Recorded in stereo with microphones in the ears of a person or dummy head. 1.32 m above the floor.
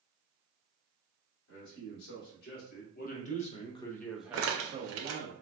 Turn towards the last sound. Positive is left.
turn(degrees=-65)  # may be behind; listen again after turning